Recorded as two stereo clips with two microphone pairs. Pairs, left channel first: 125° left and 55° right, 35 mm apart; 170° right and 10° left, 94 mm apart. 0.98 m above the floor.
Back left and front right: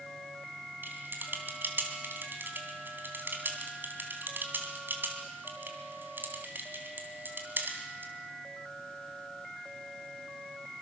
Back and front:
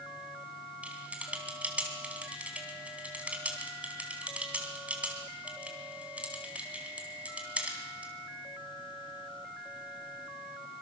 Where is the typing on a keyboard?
65° right, 3.5 m.